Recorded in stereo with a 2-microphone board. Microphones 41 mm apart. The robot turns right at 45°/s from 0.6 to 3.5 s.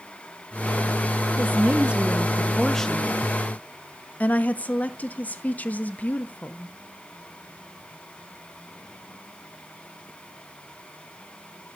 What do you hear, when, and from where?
1.4 s a woman speaking: 55° right, 1.0 m; by 6.8 s 40° left, 1.0 m